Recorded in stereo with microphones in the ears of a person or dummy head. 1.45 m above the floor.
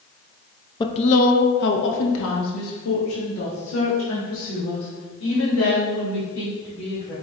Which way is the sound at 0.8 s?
20° left (ahead or behind).